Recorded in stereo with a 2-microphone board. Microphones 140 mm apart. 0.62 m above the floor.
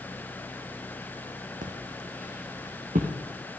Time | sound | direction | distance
1.6 | footsteps | 70° right (ahead or behind) | 1.8 m